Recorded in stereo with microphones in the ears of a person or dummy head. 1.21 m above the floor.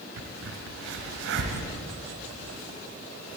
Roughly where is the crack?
Right.